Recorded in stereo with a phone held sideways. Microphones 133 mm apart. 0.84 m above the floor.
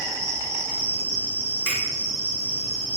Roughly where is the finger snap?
Centre.